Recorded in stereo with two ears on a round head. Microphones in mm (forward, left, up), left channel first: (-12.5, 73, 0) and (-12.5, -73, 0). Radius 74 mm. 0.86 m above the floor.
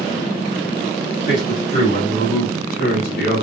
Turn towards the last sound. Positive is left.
turn(degrees=75)  # may be behind; listen again after turning